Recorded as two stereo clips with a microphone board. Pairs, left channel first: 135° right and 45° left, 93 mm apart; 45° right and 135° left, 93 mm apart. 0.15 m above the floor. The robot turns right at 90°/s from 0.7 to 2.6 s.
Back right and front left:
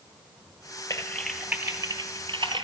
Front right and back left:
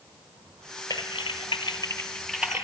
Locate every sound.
0.9 s typing on a keyboard: 85° right, 1.1 m; by 2.6 s 70° left, 1.1 m